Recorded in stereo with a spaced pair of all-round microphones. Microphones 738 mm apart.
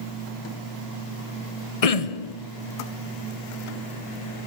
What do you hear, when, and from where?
1.8 s throat clearing: 50° left (ahead or behind), 1.0 m